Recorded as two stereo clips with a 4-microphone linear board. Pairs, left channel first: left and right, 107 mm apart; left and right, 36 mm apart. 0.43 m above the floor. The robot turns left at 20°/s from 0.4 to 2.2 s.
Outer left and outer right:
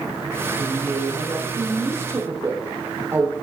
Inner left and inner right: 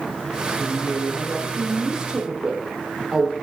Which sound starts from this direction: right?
A woman speaking, at 0.6 s.